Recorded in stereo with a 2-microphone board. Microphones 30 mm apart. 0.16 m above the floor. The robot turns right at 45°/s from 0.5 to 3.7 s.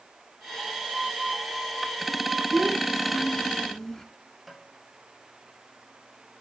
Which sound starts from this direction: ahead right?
A child speaking, at 2.5 s.